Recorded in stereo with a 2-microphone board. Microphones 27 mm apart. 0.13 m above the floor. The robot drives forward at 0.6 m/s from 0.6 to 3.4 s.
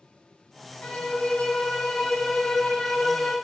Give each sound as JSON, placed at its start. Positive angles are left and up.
{"t": 0.8, "sound": "a violin", "side_deg": 75, "distance_m": 1.4}